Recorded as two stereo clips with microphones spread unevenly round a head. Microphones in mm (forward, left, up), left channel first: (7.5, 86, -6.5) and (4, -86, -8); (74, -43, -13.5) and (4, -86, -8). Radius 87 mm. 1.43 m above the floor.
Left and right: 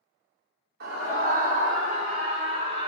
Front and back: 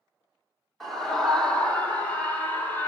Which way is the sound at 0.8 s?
55° right.